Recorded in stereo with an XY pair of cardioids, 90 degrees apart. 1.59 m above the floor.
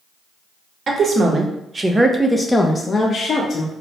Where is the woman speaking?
50° right, 1.0 m; by 3.7 s 60° left, 0.8 m.